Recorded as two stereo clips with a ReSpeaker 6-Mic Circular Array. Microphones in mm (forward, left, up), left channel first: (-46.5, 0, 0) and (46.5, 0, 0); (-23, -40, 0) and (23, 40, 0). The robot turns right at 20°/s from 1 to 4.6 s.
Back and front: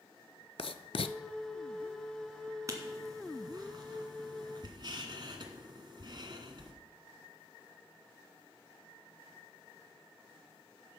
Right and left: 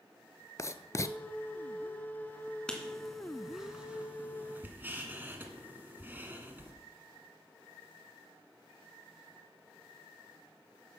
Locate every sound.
0.6 s writing: 175° right, 0.5 m
2.7 s writing: 40° right, 1.7 m; by 6.7 s 5° right, 1.7 m